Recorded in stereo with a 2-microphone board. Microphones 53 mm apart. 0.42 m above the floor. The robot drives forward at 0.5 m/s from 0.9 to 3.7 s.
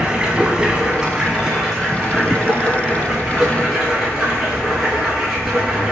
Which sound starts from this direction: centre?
Running water, at 0.0 s.